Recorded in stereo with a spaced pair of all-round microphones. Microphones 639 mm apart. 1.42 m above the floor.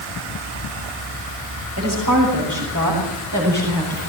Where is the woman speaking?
25° right (ahead or behind), 7 m.